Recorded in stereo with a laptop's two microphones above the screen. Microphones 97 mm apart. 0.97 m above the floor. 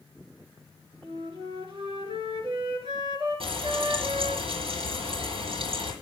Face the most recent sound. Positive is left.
turn(degrees=-70)  # may be behind; listen again after turning